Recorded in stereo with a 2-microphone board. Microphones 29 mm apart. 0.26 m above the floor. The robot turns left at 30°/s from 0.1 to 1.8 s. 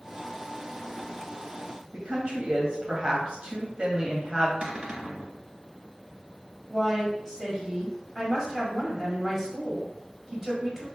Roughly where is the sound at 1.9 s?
Right.